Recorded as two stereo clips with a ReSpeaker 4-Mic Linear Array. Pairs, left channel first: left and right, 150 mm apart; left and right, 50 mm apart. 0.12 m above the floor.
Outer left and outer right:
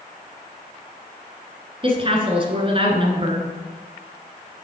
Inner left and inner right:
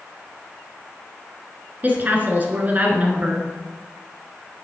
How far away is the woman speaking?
About 1.4 m.